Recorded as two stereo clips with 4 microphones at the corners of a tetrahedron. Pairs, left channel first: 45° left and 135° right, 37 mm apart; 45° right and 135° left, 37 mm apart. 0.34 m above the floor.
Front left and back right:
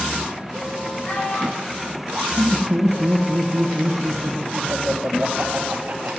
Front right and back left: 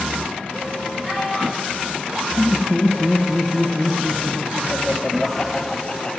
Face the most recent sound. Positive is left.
turn(degrees=-105)